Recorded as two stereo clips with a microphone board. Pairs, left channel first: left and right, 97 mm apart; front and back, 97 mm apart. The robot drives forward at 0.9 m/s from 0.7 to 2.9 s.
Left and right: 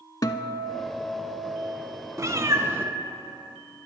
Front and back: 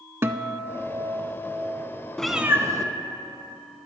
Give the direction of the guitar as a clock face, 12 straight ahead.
8 o'clock.